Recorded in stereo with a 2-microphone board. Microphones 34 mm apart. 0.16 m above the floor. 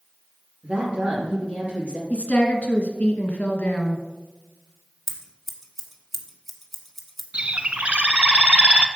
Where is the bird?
35° right (ahead or behind), 0.6 m.